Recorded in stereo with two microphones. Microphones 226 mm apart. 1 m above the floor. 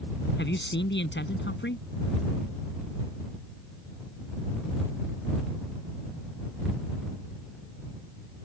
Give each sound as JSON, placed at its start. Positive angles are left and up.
{"t": 0.4, "sound": "a man speaking", "side_deg": 55}